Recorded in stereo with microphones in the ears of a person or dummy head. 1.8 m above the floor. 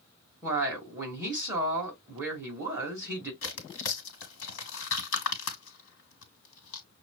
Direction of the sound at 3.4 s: 80° left.